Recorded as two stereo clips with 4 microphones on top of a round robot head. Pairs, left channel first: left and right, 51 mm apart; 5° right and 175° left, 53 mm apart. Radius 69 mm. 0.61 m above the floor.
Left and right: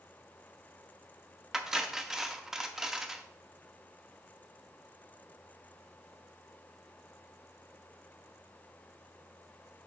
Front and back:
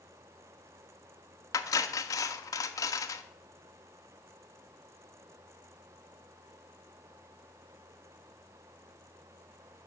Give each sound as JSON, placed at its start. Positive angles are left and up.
{"t": 1.5, "sound": "cutlery clinking", "azimuth_deg": -5, "distance_m": 0.6}